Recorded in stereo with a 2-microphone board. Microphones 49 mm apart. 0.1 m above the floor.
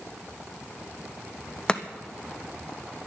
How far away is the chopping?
About 0.9 m.